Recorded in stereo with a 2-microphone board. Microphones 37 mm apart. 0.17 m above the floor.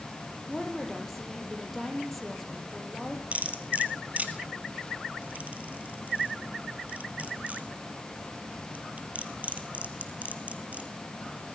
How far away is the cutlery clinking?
About 2 m.